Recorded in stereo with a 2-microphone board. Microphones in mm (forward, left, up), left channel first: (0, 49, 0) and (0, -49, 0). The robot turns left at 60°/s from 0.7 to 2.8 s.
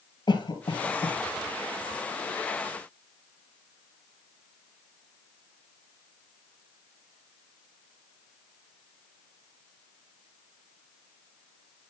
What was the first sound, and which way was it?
A cough, 50° left (ahead or behind).